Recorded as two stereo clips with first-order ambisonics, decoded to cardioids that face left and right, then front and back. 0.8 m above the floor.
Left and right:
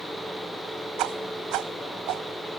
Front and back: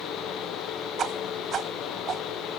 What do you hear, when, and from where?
1.0 s a whoosh: 120° right